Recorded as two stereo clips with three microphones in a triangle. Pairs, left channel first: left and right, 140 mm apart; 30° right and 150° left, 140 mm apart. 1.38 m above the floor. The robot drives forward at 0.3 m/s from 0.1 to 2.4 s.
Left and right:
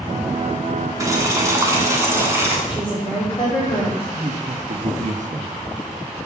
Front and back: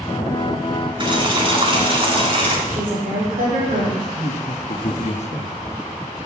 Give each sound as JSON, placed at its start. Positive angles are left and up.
{"t": 1.0, "sound": "boiling", "azimuth_deg": -155, "distance_m": 1.8}
{"t": 2.7, "sound": "a woman speaking", "azimuth_deg": 145, "distance_m": 5.0}
{"t": 4.0, "sound": "a man speaking", "azimuth_deg": -65, "distance_m": 1.1}